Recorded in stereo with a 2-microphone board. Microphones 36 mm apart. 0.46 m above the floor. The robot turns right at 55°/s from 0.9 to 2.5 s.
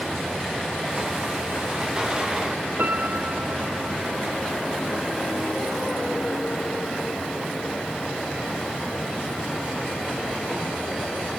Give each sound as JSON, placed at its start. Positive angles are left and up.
{"t": 2.8, "sound": "a piano", "side_deg": -60}